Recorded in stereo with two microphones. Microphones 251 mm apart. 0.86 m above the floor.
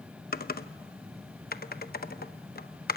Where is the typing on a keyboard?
35° left (ahead or behind), 0.8 m.